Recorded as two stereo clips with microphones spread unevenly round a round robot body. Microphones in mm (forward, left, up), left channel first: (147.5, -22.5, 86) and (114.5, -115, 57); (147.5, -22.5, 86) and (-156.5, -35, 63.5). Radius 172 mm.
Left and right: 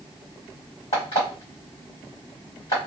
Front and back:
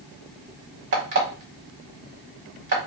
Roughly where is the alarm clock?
Behind left.